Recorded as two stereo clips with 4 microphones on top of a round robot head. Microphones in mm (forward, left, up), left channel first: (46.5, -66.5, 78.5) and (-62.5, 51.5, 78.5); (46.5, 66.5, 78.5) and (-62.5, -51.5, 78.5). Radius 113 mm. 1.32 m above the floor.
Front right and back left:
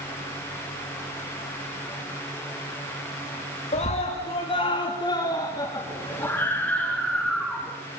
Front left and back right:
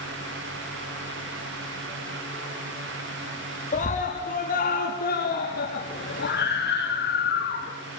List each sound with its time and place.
3.7 s a scream: 5° left, 3.5 m; by 7.7 s 45° left, 4 m